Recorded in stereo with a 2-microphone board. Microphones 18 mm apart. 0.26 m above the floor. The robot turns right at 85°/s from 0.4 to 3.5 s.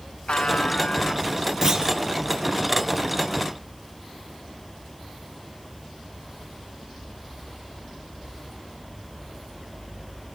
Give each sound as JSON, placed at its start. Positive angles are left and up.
{"t": 0.3, "sound": "a buzzer", "azimuth_deg": 90, "distance_m": 0.8}
{"t": 1.6, "sound": "a clunk", "side_deg": -20, "distance_m": 3.0}